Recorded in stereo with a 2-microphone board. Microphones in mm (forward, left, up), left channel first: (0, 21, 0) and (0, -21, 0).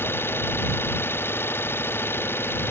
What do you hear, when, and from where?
0.0 s an engine running: 75° left (ahead or behind)